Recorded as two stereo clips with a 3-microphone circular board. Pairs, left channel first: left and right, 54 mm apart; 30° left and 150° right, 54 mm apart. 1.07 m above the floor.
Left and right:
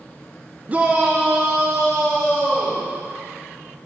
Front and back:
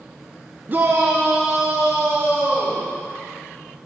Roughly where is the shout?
Behind right.